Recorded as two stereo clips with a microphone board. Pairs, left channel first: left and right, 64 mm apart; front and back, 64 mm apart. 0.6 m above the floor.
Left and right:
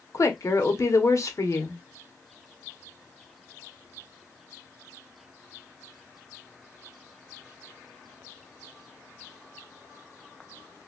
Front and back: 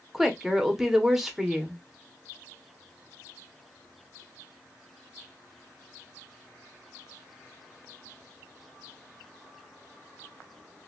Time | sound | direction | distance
0.1 | a woman speaking | 95° left | 0.9 m